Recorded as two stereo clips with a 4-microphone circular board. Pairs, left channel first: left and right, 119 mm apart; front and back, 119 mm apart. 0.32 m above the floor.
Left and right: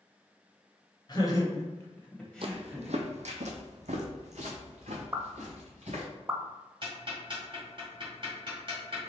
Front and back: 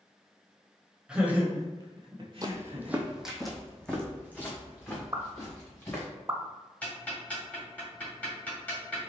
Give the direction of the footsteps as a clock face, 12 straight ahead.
4 o'clock.